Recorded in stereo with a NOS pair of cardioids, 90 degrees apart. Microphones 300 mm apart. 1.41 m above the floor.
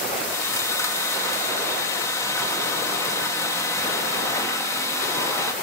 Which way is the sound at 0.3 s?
10° left.